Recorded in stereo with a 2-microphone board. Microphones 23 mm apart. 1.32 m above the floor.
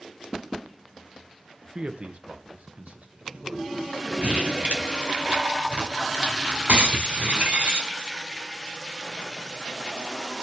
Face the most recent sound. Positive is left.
turn(degrees=-75)  # may be behind; listen again after turning